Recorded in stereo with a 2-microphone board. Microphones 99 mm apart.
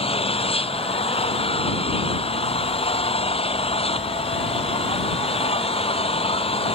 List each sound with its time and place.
0.0 s an engine running: 70° left (ahead or behind)